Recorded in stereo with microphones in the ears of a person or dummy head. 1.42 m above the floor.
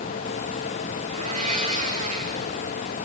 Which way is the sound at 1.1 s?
40° right (ahead or behind).